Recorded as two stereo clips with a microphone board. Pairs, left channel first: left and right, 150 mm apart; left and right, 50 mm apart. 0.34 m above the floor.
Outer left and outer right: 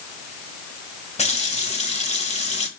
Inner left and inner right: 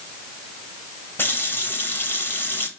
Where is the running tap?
45° left (ahead or behind), 1.1 m.